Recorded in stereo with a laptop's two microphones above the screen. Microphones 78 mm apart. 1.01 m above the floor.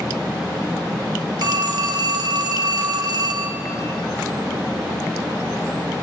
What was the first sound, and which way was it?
A phone ringing, 60° right (ahead or behind).